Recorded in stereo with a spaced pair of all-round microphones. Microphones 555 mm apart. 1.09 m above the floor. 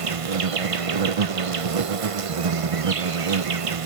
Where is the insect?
70° right (ahead or behind), 0.8 m.